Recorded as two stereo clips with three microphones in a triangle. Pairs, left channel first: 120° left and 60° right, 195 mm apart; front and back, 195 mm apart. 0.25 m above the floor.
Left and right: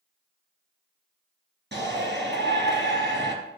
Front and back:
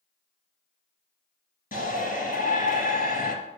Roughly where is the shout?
Ahead right.